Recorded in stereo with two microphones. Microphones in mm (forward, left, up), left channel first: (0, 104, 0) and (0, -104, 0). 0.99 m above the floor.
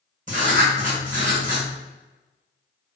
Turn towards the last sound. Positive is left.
turn(degrees=-40)  # may be behind; listen again after turning